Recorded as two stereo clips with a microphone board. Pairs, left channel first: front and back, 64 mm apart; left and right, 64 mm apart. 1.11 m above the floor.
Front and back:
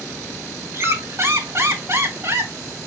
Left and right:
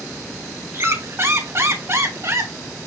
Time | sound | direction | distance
0.7 | a squeak | 135° right | 3.5 m